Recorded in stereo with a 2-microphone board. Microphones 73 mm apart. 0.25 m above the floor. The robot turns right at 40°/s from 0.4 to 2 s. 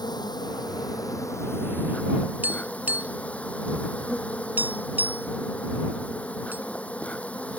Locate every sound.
0.0 s an insect: 100° left; by 7.6 s 160° left
2.4 s tapping: 25° right (ahead or behind)